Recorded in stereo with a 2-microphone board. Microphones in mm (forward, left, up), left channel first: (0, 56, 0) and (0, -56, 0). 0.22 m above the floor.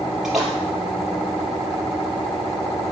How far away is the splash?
About 4 m.